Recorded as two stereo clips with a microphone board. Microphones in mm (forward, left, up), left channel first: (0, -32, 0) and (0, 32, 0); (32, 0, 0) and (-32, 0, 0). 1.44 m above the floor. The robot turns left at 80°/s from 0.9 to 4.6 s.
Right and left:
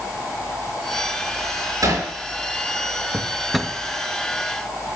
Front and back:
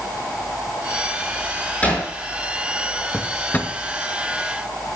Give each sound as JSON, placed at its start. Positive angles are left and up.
{"t": 1.8, "sound": "hammering", "azimuth_deg": 70, "distance_m": 7.0}
{"t": 3.1, "sound": "a drawer", "azimuth_deg": 40, "distance_m": 0.8}